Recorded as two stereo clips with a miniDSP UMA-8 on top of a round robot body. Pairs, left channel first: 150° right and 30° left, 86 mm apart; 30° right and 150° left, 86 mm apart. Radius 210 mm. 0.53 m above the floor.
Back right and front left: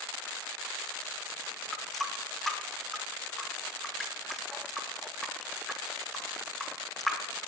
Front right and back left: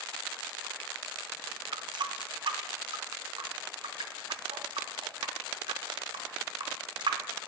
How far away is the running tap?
About 0.8 m.